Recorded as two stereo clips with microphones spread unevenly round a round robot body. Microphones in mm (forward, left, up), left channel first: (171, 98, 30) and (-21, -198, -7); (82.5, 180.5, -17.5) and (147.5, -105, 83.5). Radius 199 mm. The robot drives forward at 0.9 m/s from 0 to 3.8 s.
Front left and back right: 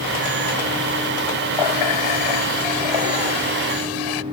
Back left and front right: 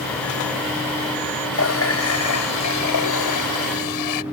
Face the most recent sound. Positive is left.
turn(degrees=100)